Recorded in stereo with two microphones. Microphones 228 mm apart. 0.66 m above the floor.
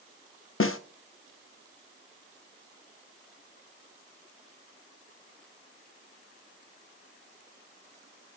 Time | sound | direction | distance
0.6 | a snare drum | 60° left (ahead or behind) | 0.6 m